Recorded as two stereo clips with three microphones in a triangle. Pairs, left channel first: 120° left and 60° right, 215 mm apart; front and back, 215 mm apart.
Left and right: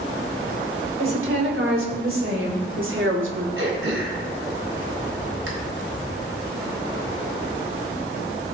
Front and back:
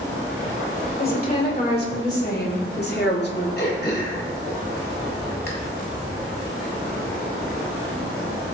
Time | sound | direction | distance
1.0 | a woman speaking | 45° right | 5 m
3.6 | throat clearing | 40° right | 3.5 m